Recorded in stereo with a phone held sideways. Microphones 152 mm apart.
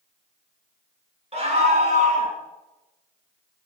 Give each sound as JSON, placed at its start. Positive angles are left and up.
{"t": 1.3, "sound": "a scream", "side_deg": -40, "distance_m": 3.0}